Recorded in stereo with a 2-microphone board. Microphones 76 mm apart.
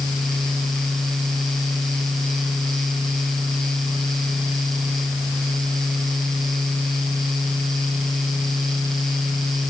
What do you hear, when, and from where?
Only background noise.